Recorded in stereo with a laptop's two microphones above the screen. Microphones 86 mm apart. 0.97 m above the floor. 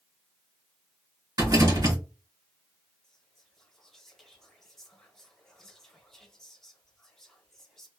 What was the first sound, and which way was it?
A rattle, 45° right (ahead or behind).